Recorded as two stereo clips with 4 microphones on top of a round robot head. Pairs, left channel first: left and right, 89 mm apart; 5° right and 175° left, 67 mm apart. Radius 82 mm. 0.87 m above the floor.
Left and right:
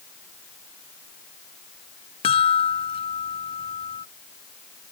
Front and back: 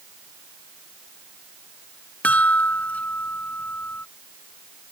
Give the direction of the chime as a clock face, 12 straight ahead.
10 o'clock.